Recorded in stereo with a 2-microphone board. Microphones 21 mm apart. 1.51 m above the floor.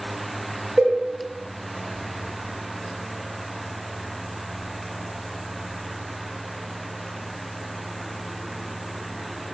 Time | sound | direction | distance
0.8 | a cowbell | 70° right (ahead or behind) | 0.8 m